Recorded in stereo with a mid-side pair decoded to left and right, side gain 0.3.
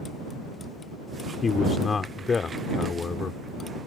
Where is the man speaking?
55° left.